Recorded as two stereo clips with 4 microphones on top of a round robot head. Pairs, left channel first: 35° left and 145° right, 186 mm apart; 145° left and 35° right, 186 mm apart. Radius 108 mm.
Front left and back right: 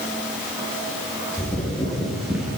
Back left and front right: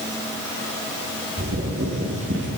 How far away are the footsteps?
About 8 m.